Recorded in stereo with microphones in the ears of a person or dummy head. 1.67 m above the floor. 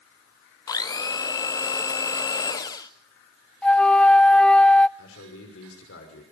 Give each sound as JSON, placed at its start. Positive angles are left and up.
{"t": 0.7, "sound": "a blender", "side_deg": 20, "distance_m": 0.7}
{"t": 3.6, "sound": "a flute", "side_deg": 10, "distance_m": 0.6}
{"t": 5.0, "sound": "a man speaking", "side_deg": 85, "distance_m": 5.5}